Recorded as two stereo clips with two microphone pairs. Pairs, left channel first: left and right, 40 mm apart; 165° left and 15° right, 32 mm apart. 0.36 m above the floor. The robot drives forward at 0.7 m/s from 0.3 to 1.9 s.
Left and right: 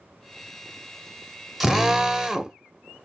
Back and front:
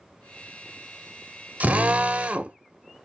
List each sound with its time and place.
1.6 s a drill: 10° right, 0.7 m; by 2.6 s 15° right, 0.5 m